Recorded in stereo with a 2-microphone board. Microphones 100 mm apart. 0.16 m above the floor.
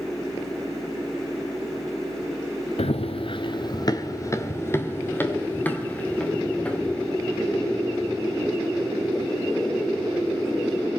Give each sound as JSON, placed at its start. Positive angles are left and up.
{"t": 2.8, "sound": "running footsteps", "side_deg": 85, "distance_m": 0.8}